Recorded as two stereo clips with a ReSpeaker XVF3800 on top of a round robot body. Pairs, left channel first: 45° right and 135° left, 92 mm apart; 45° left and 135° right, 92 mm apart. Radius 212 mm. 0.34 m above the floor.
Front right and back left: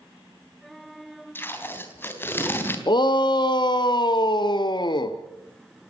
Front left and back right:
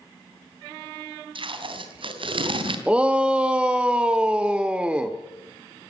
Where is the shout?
60° right, 1.4 m.